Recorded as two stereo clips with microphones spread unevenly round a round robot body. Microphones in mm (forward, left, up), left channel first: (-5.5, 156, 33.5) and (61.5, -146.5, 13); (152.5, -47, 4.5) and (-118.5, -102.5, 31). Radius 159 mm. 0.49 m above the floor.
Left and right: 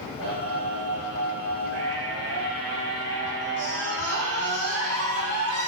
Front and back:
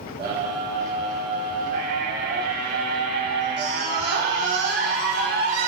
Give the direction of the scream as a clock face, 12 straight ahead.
4 o'clock.